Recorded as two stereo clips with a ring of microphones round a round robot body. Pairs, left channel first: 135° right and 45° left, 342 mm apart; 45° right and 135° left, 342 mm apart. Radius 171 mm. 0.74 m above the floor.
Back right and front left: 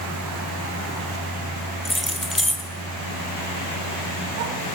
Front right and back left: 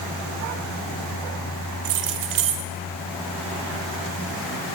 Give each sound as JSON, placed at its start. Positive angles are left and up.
{"t": 1.9, "sound": "keys jangling", "azimuth_deg": 135, "distance_m": 1.7}